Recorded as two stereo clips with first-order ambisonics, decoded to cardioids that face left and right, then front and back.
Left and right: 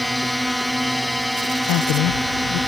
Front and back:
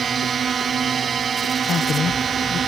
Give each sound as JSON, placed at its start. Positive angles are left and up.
{"t": 0.0, "sound": "a drone", "azimuth_deg": -175}
{"t": 1.7, "sound": "a woman speaking", "azimuth_deg": 60}